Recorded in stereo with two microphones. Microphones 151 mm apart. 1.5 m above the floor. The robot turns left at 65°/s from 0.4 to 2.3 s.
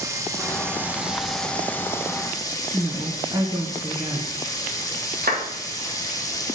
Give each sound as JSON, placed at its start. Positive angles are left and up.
{"t": 0.0, "sound": "running water", "side_deg": -20, "distance_m": 1.0}
{"t": 2.7, "sound": "a woman speaking", "side_deg": -25, "distance_m": 1.0}
{"t": 5.2, "sound": "a clap", "side_deg": -70, "distance_m": 2.0}